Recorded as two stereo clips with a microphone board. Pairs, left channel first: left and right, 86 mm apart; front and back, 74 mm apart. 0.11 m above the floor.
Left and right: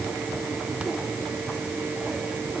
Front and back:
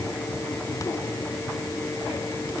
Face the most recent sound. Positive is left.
No sound to turn to.